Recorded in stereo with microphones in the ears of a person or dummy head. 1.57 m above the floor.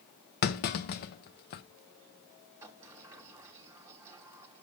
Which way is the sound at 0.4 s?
50° left (ahead or behind).